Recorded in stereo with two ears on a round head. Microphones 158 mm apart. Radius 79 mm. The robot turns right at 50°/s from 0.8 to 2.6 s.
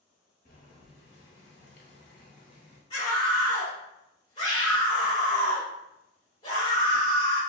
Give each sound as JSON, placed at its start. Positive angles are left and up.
{"t": 0.5, "sound": "boiling", "azimuth_deg": 50, "distance_m": 0.8}
{"t": 2.9, "sound": "a scream", "side_deg": 30, "distance_m": 1.7}